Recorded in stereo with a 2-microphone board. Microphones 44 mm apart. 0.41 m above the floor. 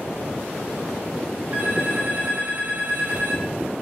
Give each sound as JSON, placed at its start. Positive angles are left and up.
{"t": 1.5, "sound": "a phone ringing", "side_deg": -35, "distance_m": 4.5}